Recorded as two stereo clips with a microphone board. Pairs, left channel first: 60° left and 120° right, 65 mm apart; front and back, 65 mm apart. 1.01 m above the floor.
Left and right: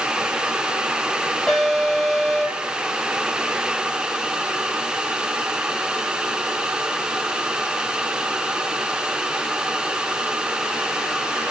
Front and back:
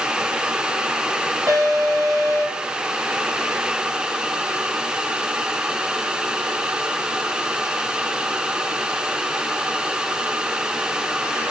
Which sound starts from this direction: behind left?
An alarm, at 1.5 s.